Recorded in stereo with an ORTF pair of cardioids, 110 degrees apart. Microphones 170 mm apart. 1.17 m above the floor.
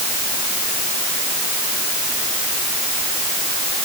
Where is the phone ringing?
No phone ringing in this recording.